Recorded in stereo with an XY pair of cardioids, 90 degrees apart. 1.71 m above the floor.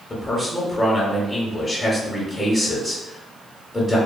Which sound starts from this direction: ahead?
A man speaking, at 0.1 s.